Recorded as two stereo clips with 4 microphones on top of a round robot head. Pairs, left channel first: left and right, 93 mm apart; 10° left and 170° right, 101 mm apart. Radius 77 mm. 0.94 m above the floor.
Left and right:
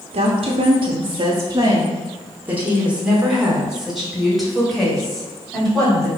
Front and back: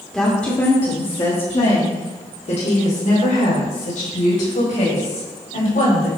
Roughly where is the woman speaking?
Right.